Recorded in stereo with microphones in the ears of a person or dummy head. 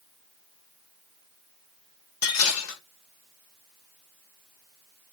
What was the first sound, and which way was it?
Dishes clattering, 80° left.